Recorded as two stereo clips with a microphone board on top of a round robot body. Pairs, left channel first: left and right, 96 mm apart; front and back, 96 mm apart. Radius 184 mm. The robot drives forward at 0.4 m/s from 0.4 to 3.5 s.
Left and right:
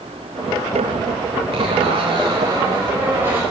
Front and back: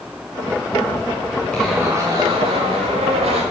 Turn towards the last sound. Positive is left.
turn(degrees=-165)